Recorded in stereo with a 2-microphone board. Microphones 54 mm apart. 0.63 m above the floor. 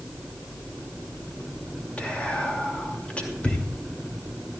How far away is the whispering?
About 2.5 m.